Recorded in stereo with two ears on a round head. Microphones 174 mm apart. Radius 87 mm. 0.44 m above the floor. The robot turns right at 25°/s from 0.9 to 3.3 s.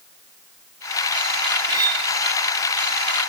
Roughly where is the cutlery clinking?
Centre.